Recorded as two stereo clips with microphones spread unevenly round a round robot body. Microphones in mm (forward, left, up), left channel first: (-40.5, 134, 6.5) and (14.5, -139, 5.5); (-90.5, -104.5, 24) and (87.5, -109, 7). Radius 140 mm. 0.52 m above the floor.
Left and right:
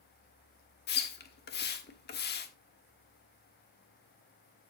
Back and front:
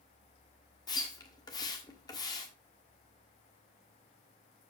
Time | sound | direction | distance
0.9 | a splash | 115° left | 1.2 m